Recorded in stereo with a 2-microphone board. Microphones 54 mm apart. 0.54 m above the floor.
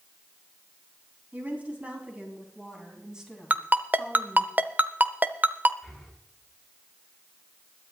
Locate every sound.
1.3 s a woman speaking: 30° right (ahead or behind), 4 m; by 4.5 s centre (ahead or behind), 3.5 m
3.5 s a ringtone: 35° right (ahead or behind), 0.6 m
5.8 s breathing: centre (ahead or behind), 4 m